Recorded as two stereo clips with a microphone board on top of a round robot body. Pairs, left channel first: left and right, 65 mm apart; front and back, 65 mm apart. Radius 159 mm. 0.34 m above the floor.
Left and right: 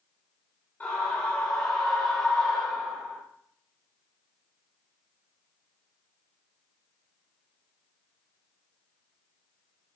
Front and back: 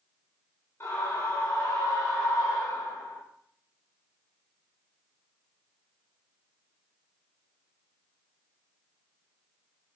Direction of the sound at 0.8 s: 35° left.